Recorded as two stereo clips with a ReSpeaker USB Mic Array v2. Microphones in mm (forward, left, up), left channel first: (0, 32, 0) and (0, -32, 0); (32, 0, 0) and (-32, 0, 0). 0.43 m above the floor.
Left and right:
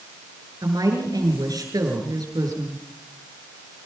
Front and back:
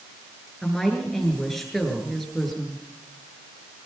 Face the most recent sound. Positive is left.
turn(degrees=-85)